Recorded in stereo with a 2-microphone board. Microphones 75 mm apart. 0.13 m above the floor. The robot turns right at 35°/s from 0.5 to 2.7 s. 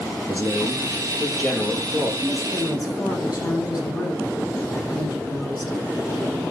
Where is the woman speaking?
45° left (ahead or behind), 4.5 m; by 5.8 s 60° left (ahead or behind), 4.5 m.